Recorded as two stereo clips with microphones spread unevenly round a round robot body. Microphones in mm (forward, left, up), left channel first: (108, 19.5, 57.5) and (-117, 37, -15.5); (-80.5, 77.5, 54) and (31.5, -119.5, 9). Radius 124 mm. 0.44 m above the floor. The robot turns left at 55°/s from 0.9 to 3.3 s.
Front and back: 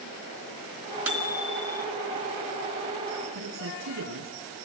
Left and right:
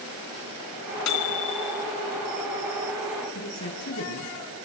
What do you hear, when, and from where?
1.1 s a microwave: 95° left, 3 m; by 1.9 s 50° left, 3 m
3.3 s a man speaking: 160° left, 5.5 m